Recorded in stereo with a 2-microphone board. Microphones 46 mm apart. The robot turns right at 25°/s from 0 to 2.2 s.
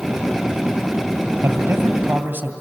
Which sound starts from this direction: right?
A man speaking, at 1.4 s.